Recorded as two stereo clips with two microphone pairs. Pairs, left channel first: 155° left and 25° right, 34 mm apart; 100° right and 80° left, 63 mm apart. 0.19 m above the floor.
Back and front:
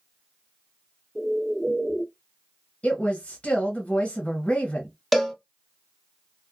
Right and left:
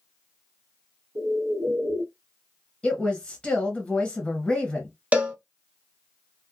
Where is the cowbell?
65° left, 0.7 m.